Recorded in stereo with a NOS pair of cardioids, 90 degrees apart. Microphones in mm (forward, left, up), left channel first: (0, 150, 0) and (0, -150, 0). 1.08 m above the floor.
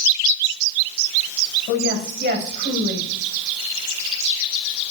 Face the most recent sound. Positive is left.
turn(degrees=-35)